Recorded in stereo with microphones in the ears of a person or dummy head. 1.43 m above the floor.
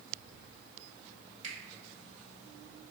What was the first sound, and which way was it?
A finger snap, 40° right (ahead or behind).